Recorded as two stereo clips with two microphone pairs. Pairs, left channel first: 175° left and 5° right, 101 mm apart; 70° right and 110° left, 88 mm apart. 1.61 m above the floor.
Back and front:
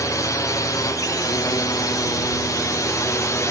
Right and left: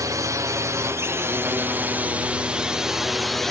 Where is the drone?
135° left; by 3.5 s 155° right.